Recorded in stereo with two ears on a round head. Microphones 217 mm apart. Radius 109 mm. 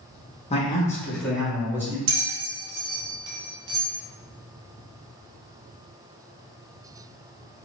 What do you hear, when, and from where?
0.5 s a man speaking: 25° left (ahead or behind), 0.7 m; by 2.0 s 10° right (ahead or behind), 1.5 m
2.1 s a bell: 65° right (ahead or behind), 0.7 m